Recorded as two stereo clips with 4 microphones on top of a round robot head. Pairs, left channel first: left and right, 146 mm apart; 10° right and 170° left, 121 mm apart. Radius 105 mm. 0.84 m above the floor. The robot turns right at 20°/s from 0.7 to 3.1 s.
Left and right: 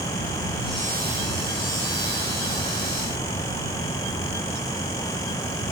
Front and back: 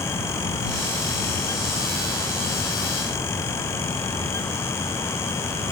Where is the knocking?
I don't hear knocking.